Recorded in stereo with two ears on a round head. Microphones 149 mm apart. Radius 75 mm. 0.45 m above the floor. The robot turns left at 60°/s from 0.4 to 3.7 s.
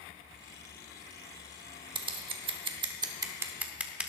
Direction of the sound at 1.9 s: 25° right (ahead or behind).